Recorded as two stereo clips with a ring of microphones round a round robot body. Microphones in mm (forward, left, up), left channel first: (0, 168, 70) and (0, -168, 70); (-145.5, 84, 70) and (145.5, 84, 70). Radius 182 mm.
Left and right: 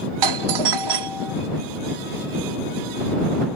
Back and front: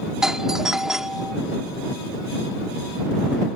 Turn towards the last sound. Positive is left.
turn(degrees=-90)